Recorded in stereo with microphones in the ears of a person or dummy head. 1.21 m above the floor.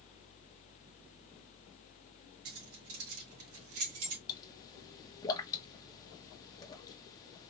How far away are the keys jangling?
About 2.5 m.